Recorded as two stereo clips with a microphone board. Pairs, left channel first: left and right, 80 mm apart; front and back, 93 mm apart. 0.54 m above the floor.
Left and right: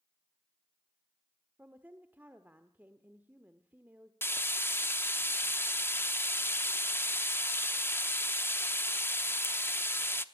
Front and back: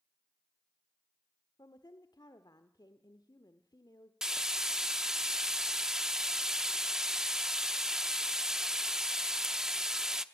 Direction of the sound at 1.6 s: 25° right.